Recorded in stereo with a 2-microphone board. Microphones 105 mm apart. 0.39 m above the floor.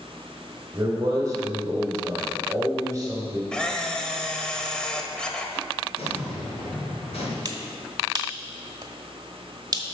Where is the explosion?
75° left (ahead or behind), 3.5 m.